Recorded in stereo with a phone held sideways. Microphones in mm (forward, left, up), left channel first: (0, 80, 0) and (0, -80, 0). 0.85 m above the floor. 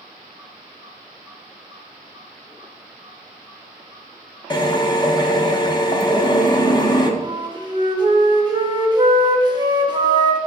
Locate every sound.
4.5 s a drill: 30° left (ahead or behind), 0.5 m
7.2 s a flute: 30° right (ahead or behind), 0.6 m